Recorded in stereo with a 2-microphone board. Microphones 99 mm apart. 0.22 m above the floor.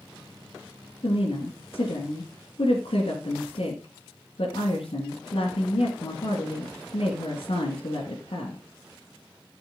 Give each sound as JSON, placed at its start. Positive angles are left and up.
{"t": 1.0, "sound": "a woman speaking", "side_deg": 65, "distance_m": 2.5}